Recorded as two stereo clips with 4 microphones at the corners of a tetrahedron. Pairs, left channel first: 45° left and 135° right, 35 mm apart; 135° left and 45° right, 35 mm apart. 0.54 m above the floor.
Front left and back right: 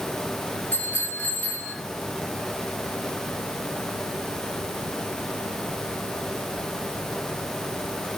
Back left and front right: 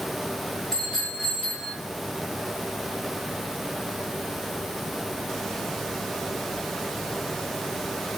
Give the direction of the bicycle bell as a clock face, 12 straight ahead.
10 o'clock.